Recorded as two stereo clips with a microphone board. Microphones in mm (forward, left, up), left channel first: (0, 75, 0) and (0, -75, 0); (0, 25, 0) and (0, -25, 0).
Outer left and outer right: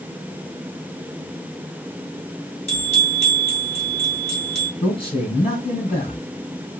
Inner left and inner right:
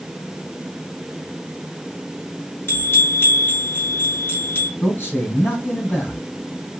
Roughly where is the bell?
Left.